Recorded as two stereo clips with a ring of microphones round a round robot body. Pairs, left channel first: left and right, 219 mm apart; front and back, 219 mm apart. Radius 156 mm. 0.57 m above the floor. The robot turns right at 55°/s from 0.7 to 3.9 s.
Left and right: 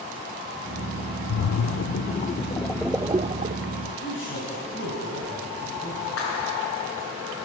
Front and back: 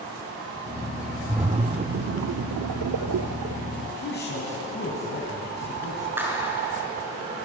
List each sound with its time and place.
1.3 s a splash: 100° left, 0.5 m; by 3.8 s 125° right, 0.5 m
3.9 s a man speaking: 35° left, 4.5 m; by 6.2 s 40° left, 4.5 m
6.2 s a clap: 100° left, 6 m